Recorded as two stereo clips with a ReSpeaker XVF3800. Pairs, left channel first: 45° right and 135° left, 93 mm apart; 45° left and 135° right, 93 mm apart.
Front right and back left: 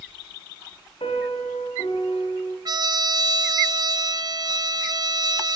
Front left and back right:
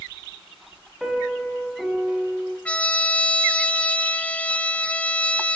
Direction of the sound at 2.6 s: 115° left.